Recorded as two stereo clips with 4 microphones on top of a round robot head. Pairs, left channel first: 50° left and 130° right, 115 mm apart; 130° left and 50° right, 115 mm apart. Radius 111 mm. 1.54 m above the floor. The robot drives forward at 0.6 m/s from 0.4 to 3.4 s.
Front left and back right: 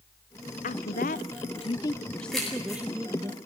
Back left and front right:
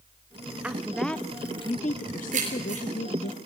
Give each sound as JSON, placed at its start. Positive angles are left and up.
{"t": 0.6, "sound": "a woman speaking", "azimuth_deg": 30, "distance_m": 0.8}
{"t": 2.3, "sound": "keys jangling", "azimuth_deg": -40, "distance_m": 9.0}